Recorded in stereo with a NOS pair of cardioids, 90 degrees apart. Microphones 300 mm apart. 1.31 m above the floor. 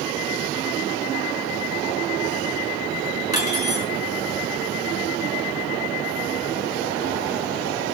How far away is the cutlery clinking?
About 3.5 m.